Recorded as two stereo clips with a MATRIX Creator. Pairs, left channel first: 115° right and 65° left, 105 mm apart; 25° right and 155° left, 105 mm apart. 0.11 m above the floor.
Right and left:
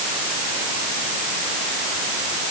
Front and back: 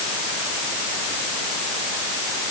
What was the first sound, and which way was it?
Only background noise.